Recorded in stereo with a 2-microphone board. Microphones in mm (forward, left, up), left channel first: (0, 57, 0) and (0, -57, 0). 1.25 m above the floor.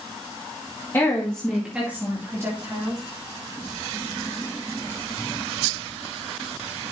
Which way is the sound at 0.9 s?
25° left (ahead or behind).